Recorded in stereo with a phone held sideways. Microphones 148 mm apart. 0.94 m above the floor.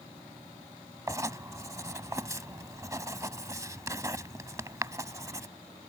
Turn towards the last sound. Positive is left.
turn(degrees=-20)  # may be behind; listen again after turning